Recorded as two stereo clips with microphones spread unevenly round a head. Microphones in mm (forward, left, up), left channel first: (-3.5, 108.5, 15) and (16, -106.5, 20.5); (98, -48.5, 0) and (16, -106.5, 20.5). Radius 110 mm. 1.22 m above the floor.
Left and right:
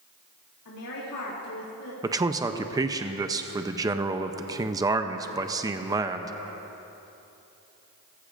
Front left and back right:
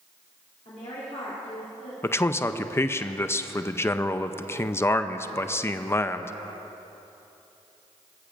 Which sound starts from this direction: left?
A woman speaking, at 0.7 s.